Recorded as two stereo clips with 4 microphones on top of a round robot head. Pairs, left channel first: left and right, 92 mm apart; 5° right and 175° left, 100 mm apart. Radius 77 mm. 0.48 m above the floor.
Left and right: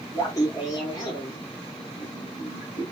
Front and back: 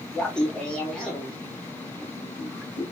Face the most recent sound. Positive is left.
turn(degrees=80)